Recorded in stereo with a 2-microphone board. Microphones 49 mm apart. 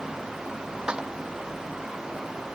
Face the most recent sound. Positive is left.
turn(degrees=-15)  # may be behind; listen again after turning